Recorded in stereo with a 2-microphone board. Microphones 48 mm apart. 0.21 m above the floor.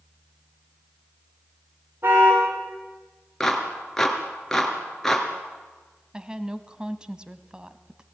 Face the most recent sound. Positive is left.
turn(degrees=-20)  # may be behind; listen again after turning